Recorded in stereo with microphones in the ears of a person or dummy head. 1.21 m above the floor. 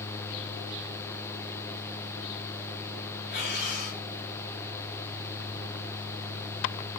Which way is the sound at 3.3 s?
60° left (ahead or behind).